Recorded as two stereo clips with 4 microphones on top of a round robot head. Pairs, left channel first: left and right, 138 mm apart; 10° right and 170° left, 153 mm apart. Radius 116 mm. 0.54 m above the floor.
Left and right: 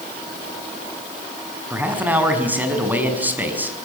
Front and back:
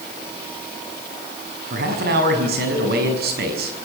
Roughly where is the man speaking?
Behind.